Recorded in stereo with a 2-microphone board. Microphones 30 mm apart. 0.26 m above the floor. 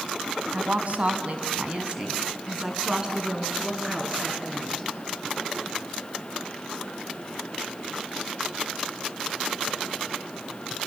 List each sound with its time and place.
0.5 s a woman speaking: 55° right (ahead or behind), 2.5 m; by 4.9 s 15° right (ahead or behind), 5 m